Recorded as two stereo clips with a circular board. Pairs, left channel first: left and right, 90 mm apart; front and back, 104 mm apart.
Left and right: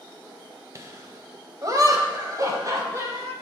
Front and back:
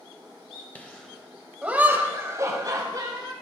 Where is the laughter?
65° right, 1.5 m; by 3.3 s 140° right, 2.5 m.